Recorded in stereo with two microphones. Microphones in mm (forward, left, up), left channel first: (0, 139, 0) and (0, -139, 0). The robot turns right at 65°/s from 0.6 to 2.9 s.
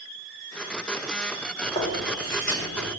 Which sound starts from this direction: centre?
Chewing, at 1.6 s.